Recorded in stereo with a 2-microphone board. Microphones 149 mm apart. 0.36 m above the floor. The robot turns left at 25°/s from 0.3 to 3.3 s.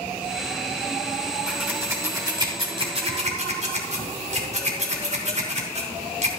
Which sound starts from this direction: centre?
Scissors, at 1.5 s.